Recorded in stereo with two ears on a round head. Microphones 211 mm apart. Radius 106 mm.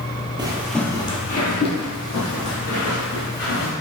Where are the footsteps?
20° right (ahead or behind), 0.8 m; by 3.7 s 70° left (ahead or behind), 3 m.